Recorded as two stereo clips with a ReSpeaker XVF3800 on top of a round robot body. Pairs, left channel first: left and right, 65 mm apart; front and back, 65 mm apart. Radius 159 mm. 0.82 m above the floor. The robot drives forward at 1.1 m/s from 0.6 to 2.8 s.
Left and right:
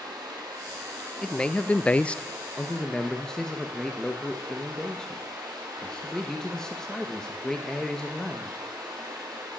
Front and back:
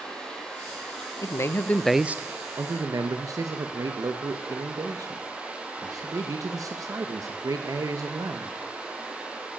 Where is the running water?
80° right, 4.5 m; by 9.6 s 110° right, 5 m.